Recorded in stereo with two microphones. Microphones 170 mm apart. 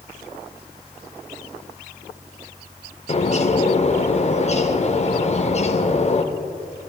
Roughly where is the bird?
Left.